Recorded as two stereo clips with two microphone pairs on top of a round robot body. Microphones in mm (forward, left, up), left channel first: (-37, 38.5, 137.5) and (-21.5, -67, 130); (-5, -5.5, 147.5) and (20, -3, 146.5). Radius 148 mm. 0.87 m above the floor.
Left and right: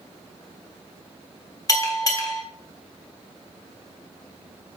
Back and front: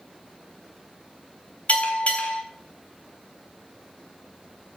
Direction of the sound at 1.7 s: 155° left.